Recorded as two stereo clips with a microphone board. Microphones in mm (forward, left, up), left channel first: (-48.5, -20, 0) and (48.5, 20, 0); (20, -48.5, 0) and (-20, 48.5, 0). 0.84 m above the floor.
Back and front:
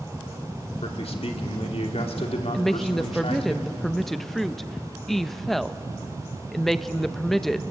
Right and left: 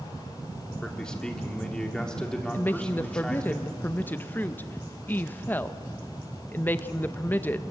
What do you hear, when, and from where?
0.8 s a man speaking: 150° right, 2.5 m
2.5 s a woman speaking: 75° right, 0.6 m